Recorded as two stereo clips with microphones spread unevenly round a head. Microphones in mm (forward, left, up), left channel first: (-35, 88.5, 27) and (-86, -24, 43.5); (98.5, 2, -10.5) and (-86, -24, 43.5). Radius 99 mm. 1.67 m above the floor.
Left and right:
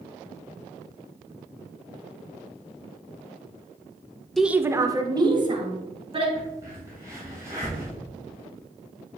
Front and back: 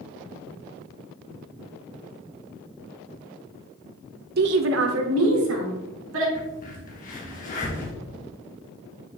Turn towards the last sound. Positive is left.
turn(degrees=-40)